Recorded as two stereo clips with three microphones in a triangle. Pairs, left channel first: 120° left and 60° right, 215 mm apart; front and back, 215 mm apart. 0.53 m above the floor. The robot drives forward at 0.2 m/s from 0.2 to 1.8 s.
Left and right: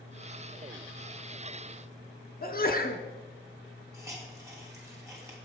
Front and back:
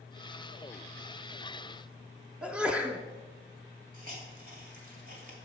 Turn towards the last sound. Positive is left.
turn(degrees=-135)